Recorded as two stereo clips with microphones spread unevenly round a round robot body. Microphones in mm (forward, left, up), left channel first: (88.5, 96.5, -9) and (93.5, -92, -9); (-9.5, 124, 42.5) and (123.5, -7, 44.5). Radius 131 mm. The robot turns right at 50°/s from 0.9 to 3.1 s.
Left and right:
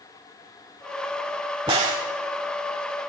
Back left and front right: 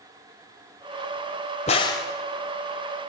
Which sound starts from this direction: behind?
A crack, at 1.7 s.